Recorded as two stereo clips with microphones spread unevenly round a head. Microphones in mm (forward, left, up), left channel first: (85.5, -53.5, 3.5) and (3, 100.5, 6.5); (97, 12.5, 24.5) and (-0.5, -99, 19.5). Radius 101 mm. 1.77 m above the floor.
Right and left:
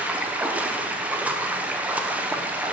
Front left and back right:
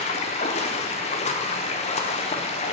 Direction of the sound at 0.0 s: 40° left.